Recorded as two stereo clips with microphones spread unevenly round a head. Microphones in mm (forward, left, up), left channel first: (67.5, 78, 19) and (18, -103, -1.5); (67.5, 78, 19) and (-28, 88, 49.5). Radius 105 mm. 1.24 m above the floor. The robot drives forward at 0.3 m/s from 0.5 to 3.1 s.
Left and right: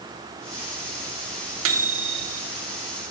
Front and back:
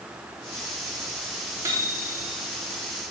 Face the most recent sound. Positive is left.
turn(degrees=-135)